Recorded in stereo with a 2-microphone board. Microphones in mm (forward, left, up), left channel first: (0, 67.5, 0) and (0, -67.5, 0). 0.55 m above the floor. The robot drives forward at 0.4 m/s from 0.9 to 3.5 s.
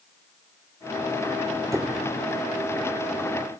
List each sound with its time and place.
1.7 s a squeak: 20° right (ahead or behind), 1.2 m; by 2.1 s 25° right (ahead or behind), 1.1 m